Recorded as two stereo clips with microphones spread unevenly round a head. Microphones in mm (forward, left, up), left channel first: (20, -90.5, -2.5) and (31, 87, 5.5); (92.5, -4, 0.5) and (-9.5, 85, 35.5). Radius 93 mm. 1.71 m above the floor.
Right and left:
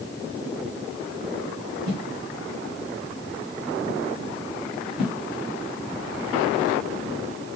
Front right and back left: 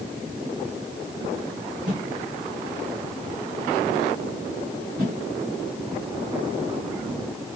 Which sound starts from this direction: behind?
A whoosh, at 1.9 s.